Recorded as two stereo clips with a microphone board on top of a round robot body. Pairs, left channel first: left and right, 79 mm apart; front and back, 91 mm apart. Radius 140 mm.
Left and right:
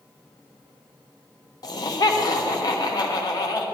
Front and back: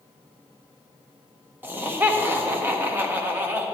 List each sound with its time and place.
1.6 s laughter: 115° left, 1.3 m